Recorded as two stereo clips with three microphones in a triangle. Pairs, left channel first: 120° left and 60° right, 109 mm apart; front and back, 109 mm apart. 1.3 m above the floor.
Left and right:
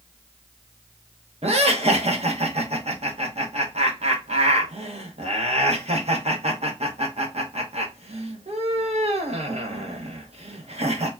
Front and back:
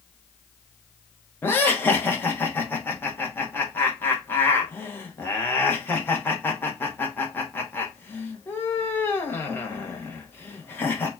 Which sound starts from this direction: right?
Laughter, at 1.4 s.